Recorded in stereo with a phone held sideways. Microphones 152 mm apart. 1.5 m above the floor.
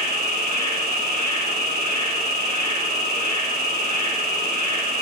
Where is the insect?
80° right, 7 m.